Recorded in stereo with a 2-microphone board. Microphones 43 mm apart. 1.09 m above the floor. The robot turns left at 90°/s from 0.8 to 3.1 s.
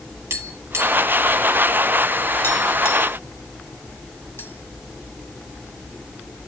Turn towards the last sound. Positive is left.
turn(degrees=60)  # may be behind; listen again after turning